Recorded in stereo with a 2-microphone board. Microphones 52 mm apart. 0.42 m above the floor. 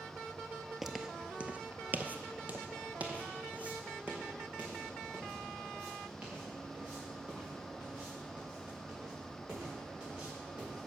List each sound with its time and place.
0.8 s footsteps: 5° right (ahead or behind), 0.5 m; by 10.9 s 20° right (ahead or behind), 6 m